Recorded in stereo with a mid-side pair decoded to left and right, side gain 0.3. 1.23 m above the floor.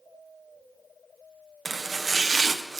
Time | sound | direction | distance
1.6 | chopping | 50° right | 0.8 m